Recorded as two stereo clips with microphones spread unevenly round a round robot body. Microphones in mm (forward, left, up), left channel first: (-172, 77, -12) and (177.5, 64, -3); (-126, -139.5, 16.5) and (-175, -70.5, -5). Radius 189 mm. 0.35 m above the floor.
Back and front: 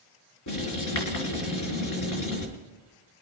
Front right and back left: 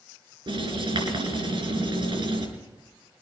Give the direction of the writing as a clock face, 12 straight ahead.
7 o'clock.